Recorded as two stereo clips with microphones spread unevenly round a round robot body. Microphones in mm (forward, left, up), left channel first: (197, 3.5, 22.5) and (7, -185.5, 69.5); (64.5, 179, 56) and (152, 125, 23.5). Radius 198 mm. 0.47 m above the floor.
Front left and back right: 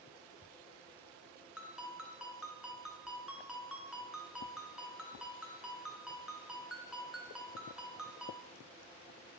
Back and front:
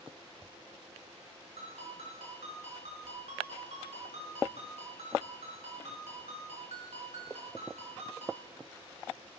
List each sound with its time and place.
1.6 s a ringtone: 45° right, 4.5 m